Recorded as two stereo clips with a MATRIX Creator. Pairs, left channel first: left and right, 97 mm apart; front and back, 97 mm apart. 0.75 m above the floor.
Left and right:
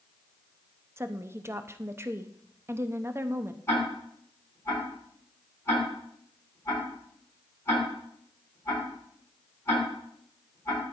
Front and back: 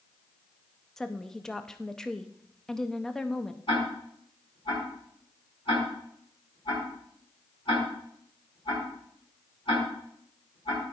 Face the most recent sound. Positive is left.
turn(degrees=30)